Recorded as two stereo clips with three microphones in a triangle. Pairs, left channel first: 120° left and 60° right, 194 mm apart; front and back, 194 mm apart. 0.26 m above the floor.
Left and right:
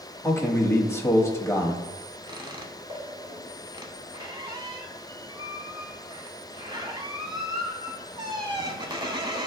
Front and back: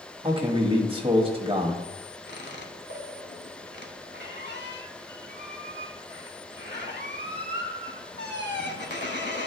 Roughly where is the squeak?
Ahead.